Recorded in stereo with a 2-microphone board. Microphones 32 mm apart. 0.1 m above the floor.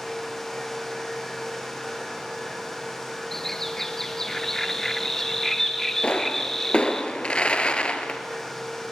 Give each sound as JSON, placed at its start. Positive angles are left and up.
{"t": 3.3, "sound": "a bird", "side_deg": 10, "distance_m": 1.2}
{"t": 6.0, "sound": "a pop", "side_deg": 35, "distance_m": 1.6}